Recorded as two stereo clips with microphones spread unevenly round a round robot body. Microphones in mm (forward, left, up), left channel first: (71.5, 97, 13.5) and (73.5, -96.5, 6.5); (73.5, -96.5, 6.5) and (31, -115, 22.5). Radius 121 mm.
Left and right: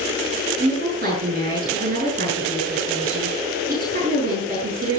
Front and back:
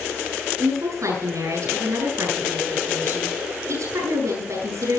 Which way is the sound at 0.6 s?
150° right.